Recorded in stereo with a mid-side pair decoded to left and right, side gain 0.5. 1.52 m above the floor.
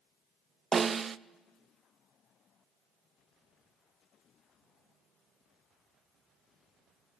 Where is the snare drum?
35° right, 0.5 m.